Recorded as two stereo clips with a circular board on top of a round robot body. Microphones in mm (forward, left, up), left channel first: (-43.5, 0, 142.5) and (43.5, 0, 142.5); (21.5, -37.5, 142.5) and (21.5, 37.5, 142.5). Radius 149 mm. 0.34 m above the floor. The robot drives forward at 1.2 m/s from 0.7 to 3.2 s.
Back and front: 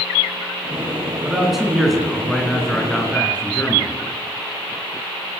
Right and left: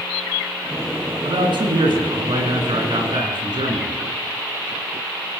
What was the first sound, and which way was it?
A man speaking, 85° left.